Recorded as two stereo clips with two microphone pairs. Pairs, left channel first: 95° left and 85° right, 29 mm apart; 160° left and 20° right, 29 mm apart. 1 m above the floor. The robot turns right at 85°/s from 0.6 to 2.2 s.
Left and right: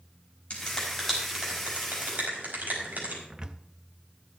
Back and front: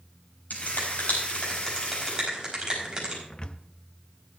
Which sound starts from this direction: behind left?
A finger snap, at 0.5 s.